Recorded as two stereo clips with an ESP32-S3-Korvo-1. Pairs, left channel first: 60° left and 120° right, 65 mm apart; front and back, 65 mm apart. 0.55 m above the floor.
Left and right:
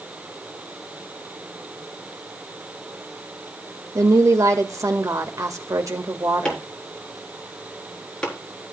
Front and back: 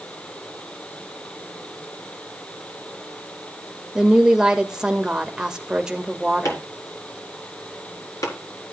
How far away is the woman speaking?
About 1.7 m.